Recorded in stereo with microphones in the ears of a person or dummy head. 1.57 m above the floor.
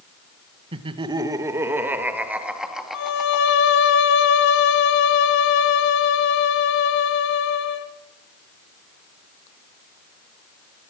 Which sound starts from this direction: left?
A violin, at 2.9 s.